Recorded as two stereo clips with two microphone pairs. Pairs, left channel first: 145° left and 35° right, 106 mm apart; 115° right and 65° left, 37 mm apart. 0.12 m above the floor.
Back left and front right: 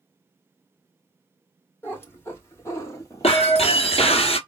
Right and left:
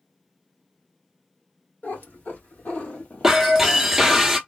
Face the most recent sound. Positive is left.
turn(degrees=140)